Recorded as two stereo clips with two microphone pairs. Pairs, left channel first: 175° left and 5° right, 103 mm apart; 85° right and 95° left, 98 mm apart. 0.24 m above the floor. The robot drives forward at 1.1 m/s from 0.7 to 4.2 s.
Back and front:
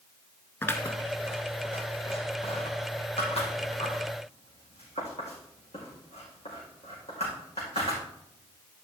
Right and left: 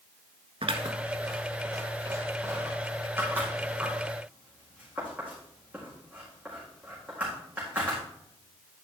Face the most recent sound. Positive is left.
turn(degrees=170)